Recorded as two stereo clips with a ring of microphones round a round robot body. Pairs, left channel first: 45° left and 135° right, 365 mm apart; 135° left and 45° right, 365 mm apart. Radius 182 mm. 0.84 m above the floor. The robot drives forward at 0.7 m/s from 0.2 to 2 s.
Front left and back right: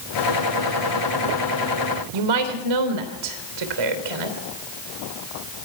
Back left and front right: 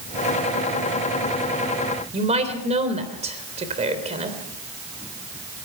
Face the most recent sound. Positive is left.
turn(degrees=-120)